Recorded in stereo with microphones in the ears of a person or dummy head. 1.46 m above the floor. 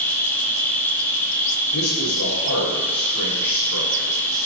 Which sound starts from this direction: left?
A man speaking, at 1.7 s.